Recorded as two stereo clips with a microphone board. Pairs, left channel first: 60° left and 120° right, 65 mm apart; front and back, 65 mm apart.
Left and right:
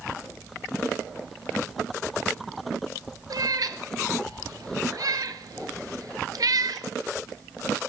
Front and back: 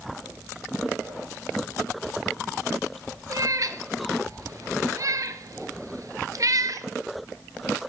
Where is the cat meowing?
145° right, 0.5 m.